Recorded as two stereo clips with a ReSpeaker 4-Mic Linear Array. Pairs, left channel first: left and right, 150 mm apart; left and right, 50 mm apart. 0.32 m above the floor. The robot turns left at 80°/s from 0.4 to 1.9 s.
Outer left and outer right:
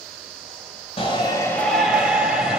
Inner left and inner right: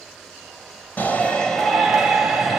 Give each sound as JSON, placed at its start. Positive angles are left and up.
{"t": 1.0, "sound": "a shout", "azimuth_deg": 65, "distance_m": 1.4}